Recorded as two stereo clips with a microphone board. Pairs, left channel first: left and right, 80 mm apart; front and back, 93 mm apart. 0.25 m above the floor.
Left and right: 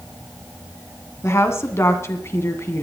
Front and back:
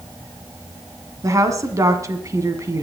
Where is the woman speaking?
135° left, 1.8 m.